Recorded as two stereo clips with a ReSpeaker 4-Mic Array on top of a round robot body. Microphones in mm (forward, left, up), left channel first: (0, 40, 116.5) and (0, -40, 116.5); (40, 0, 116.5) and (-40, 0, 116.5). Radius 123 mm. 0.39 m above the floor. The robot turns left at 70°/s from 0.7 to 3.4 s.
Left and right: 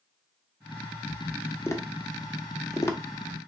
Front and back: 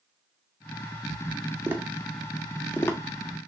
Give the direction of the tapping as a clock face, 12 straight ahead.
8 o'clock.